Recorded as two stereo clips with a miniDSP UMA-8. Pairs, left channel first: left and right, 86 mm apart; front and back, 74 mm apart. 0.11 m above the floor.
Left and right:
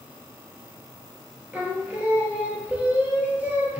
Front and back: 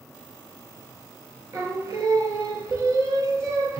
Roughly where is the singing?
Behind right.